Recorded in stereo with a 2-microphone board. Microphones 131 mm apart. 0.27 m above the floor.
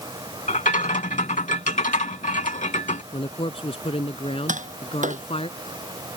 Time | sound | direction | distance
0.5 | a rattle | 70° left (ahead or behind) | ?
3.1 | a man speaking | 50° left (ahead or behind) | ?
4.5 | tapping | 80° right | ?